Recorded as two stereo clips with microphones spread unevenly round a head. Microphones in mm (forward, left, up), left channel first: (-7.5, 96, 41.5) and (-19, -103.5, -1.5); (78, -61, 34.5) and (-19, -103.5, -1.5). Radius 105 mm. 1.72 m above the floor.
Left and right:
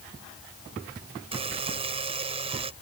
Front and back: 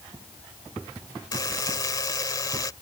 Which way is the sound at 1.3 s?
25° right.